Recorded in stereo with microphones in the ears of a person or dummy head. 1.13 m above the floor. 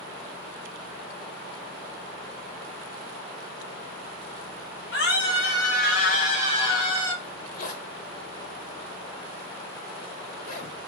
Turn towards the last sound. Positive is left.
turn(degrees=55)  # may be behind; listen again after turning